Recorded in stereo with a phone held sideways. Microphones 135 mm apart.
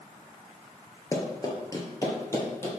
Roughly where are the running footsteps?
Left.